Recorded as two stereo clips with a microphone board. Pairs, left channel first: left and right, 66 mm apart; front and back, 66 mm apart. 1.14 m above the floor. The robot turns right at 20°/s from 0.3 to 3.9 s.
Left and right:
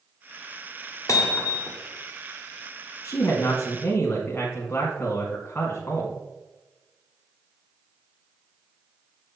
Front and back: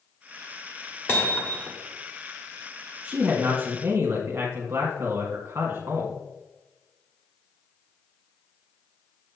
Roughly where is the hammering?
Ahead left.